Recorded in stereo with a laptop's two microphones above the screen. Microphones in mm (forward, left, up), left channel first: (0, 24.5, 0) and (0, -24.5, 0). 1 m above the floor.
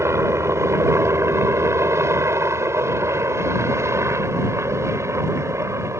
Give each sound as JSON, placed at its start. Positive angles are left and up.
{"t": 0.0, "sound": "a helicopter", "side_deg": -70}